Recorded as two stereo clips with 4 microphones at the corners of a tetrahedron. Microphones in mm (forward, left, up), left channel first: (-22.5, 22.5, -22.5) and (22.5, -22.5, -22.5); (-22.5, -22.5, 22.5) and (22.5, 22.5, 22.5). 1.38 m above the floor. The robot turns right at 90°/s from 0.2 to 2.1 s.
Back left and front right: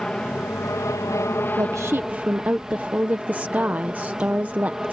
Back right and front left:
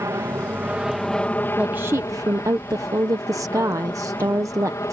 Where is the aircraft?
65° left; by 4.9 s 125° right.